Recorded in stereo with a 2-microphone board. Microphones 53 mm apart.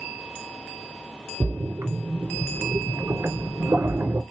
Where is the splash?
65° right (ahead or behind), 1.3 m.